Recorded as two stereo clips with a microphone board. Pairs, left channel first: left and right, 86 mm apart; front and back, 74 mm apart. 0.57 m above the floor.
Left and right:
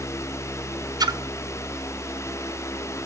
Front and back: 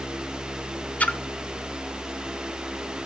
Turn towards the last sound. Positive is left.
turn(degrees=-65)